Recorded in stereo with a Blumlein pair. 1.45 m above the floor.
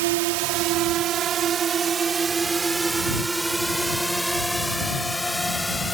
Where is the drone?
50° right; by 5.9 s 5° left.